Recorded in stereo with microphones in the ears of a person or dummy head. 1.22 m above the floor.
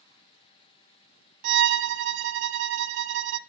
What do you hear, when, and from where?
1.4 s a violin: 60° right (ahead or behind), 0.6 m